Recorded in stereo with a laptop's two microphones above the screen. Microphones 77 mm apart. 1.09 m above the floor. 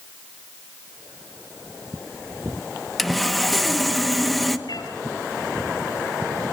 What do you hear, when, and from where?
3.0 s sawing: centre (ahead or behind), 1.1 m
4.7 s a cat meowing: 65° left (ahead or behind), 4.5 m